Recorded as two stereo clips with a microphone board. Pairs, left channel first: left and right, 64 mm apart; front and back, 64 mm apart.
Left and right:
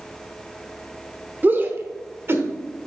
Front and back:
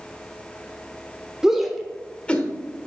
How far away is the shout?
About 1.0 m.